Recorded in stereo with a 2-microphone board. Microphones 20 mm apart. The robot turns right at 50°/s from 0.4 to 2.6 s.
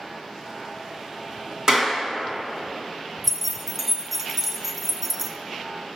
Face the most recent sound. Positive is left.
turn(degrees=-15)  # may be behind; listen again after turning